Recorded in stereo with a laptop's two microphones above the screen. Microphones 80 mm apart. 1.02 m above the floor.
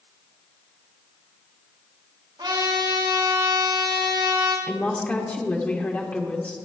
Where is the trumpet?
80° right, 4 m.